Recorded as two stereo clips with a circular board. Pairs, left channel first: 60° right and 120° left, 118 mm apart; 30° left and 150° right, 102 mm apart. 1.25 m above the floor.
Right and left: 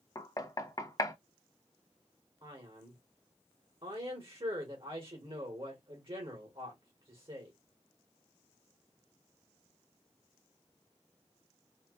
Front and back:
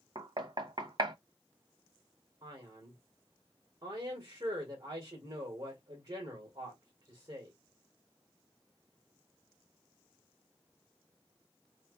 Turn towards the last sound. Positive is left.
turn(degrees=160)